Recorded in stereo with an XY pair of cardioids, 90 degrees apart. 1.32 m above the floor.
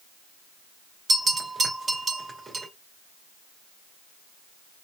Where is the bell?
35° right, 2 m.